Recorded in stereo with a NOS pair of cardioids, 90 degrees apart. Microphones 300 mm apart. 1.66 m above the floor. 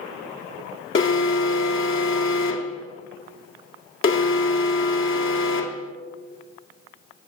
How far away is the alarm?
About 1.3 m.